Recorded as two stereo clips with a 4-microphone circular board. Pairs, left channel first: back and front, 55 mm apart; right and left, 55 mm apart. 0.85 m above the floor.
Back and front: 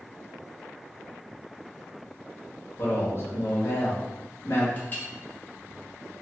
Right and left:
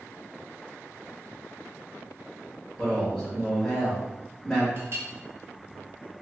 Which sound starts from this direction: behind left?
A clink, at 4.8 s.